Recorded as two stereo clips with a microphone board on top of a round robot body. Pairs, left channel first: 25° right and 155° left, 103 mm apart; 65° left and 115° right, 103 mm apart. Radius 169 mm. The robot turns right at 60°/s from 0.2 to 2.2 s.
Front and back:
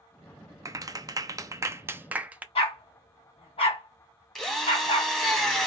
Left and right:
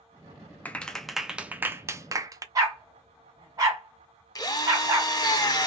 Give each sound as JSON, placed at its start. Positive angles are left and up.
{"t": 0.7, "sound": "a clap", "azimuth_deg": 130, "distance_m": 0.8}
{"t": 2.5, "sound": "a dog barking", "azimuth_deg": -55, "distance_m": 1.8}
{"t": 4.3, "sound": "a drill", "azimuth_deg": 60, "distance_m": 1.3}